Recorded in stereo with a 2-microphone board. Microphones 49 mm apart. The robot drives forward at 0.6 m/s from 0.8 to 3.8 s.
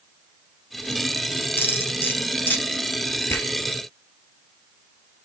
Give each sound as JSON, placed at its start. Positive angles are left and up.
{"t": 1.6, "sound": "cutlery clinking", "side_deg": 50, "distance_m": 2.5}
{"t": 3.3, "sound": "a finger snap", "side_deg": 55, "distance_m": 3.0}